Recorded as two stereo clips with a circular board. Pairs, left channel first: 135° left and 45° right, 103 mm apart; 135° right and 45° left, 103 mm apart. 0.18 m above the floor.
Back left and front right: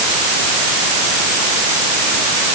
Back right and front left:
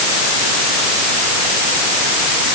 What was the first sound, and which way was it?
Only background noise.